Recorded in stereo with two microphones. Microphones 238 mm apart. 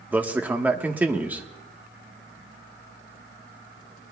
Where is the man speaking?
5° right (ahead or behind), 1.2 m.